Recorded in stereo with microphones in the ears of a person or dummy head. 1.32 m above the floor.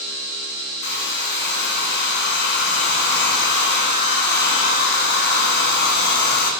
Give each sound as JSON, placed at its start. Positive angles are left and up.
{"t": 0.8, "sound": "a hair dryer", "side_deg": 60, "distance_m": 1.4}